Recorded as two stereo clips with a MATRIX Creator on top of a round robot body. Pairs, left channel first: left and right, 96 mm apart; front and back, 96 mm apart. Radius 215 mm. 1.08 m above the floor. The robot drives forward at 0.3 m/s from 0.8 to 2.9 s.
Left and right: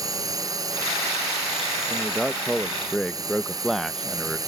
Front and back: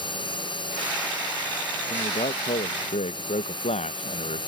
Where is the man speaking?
Straight ahead.